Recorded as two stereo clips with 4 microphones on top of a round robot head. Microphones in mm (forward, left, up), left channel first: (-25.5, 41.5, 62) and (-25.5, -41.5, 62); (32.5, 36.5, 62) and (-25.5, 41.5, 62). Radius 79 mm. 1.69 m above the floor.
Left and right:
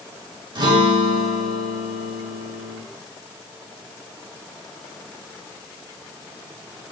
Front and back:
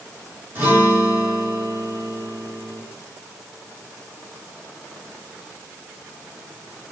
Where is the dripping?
I don't hear dripping.